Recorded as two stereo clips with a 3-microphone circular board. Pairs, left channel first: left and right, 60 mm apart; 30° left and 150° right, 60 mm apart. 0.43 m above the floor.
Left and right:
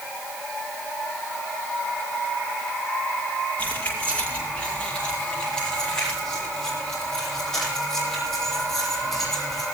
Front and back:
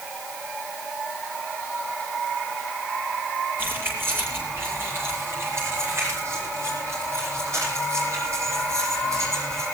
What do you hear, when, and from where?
3.6 s keys jangling: 155° left, 7.5 m; by 9.7 s 175° left, 14 m